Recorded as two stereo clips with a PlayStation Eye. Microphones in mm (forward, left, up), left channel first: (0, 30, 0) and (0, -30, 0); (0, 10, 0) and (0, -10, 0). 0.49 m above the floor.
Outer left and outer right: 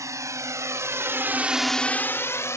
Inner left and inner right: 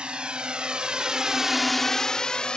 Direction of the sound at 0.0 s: 65° right (ahead or behind).